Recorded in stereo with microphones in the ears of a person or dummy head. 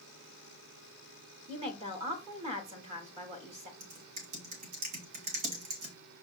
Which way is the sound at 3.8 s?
45° right (ahead or behind).